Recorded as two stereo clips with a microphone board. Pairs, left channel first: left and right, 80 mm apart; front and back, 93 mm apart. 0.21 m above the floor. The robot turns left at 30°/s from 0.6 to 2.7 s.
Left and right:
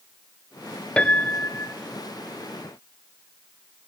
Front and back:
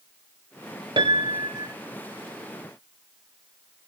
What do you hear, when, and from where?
1.0 s a piano: 165° left, 0.7 m; by 1.7 s 145° left, 0.7 m